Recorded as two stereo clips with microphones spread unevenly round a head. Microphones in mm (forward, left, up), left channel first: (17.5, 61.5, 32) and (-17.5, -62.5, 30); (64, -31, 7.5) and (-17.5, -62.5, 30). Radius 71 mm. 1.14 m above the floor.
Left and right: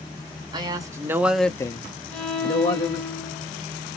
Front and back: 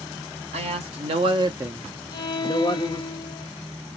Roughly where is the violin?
Ahead.